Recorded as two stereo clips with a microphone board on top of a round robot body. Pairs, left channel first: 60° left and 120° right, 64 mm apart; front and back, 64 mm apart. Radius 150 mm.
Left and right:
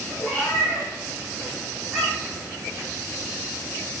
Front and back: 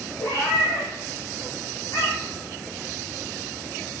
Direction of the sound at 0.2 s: 25° right.